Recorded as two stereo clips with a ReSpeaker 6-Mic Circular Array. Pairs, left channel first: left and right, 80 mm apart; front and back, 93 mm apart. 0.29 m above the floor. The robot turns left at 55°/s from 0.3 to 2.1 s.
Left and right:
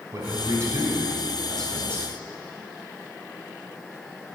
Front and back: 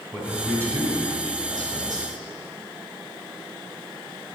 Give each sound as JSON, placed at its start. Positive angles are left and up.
{"t": 0.1, "sound": "a man speaking", "azimuth_deg": -115, "distance_m": 2.0}